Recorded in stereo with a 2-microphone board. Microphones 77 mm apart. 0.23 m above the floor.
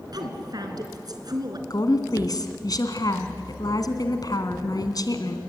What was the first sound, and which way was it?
A woman speaking, 60° right (ahead or behind).